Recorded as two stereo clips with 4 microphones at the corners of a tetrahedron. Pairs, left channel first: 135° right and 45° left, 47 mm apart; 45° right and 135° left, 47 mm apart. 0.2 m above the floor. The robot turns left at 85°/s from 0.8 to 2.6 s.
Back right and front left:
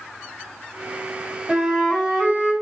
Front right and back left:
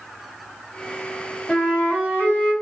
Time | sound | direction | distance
1.5 | a flute | 20° right | 1.6 m